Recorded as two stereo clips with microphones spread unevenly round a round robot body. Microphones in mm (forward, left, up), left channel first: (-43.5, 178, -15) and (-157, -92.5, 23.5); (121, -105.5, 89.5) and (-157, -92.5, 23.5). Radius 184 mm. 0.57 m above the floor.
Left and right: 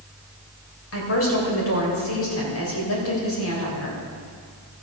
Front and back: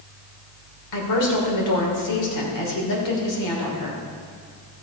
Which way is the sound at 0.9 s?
25° left.